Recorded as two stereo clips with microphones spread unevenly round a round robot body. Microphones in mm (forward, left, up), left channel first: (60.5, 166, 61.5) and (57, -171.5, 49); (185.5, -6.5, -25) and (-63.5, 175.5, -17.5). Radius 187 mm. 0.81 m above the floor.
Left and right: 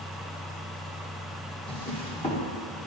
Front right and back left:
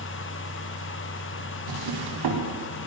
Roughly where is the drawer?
Behind.